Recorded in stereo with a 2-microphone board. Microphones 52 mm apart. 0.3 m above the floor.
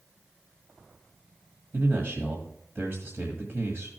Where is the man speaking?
50° right (ahead or behind), 1.6 m.